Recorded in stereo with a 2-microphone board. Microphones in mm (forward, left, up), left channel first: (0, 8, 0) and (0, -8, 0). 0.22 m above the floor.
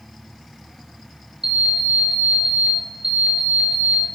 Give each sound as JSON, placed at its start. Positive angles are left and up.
{"t": 1.4, "sound": "an alarm clock", "side_deg": -65, "distance_m": 1.5}